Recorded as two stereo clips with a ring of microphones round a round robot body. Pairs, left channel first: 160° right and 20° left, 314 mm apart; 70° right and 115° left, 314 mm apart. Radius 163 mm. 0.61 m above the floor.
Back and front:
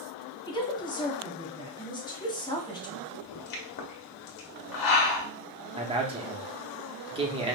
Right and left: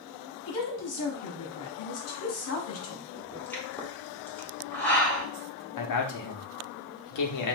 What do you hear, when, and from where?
0.5 s a woman speaking: 85° right, 1.3 m
3.1 s a pop: 150° right, 1.4 m
5.8 s a man speaking: 50° right, 0.9 m